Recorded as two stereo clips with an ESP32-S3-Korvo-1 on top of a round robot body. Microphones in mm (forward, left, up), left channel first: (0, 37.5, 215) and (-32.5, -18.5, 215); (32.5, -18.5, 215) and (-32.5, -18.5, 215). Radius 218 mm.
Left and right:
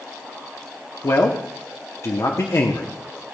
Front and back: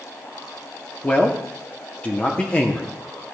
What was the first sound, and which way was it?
A man speaking, 65° left.